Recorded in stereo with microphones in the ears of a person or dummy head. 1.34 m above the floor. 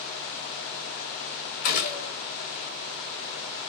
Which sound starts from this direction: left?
A gunshot, at 1.6 s.